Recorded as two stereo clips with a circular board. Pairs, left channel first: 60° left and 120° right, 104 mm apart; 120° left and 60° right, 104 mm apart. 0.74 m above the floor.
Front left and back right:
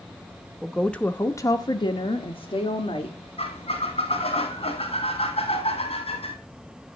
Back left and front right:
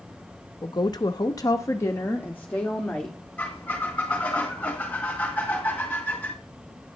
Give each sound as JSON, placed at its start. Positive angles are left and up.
{"t": 0.6, "sound": "a woman speaking", "azimuth_deg": 150, "distance_m": 0.9}
{"t": 3.4, "sound": "a squeak", "azimuth_deg": 45, "distance_m": 2.5}